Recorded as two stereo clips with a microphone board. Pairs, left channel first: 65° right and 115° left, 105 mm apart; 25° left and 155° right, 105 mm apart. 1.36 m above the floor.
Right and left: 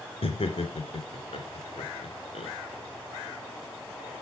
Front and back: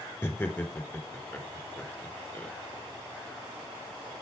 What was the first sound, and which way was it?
Laughter, 55° right.